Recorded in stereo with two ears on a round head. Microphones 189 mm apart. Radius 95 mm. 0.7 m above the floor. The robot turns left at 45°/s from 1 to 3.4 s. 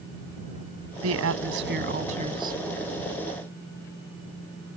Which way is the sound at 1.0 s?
95° right.